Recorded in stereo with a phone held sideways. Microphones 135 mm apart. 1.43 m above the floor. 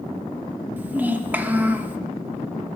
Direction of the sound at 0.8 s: 10° right (ahead or behind).